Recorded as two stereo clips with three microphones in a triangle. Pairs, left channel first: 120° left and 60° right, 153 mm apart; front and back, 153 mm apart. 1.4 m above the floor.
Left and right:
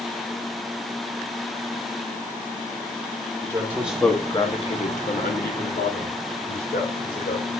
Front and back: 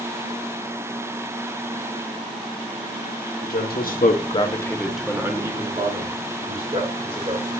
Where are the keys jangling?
I don't hear keys jangling.